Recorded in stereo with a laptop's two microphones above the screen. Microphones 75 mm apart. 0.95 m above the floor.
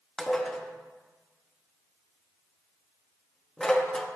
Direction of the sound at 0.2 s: 10° left (ahead or behind).